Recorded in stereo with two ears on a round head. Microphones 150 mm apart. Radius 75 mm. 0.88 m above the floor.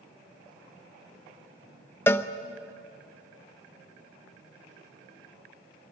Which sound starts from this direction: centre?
A cowbell, at 2.1 s.